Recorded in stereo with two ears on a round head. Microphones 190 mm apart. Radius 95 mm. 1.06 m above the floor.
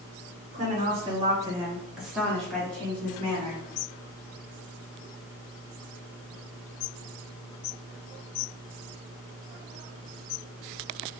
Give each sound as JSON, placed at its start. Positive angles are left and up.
{"t": 0.5, "sound": "a woman speaking", "side_deg": -40, "distance_m": 0.8}